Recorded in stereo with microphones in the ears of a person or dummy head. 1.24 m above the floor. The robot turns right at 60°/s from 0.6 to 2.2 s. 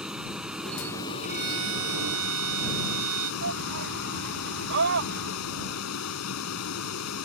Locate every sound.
0.0 s a vehicle: 5° right; by 7.2 s 90° left
1.2 s a violin: 130° right; by 3.3 s 75° right
3.4 s a shout: 65° right (ahead or behind)